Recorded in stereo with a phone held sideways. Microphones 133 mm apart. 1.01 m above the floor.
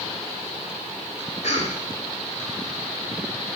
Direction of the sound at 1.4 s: 60° left (ahead or behind).